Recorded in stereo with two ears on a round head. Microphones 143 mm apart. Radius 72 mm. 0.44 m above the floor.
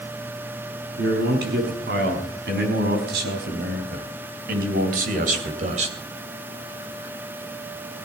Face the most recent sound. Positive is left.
turn(degrees=-45)  # may be behind; listen again after turning